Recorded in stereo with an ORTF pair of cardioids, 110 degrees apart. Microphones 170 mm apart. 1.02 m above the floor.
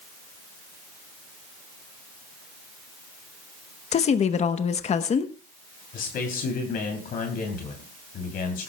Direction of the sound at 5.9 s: 60° left.